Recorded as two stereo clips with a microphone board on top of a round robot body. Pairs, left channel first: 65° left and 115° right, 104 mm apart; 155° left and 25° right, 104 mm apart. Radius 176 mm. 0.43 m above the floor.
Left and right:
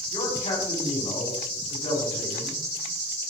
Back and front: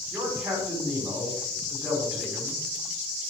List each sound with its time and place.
0.1 s a man speaking: 60° left, 4 m